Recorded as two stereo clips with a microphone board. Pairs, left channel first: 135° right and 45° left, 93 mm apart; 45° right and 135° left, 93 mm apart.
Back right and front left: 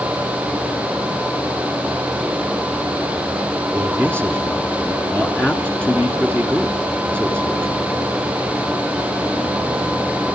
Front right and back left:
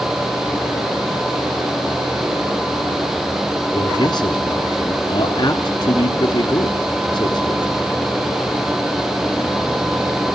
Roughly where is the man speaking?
Ahead right.